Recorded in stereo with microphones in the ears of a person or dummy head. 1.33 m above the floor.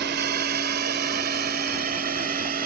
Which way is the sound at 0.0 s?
50° right (ahead or behind).